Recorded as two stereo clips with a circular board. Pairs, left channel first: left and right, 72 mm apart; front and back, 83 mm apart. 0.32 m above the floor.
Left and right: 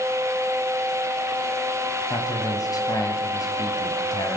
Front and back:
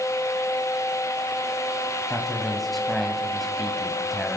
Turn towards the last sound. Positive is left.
turn(degrees=90)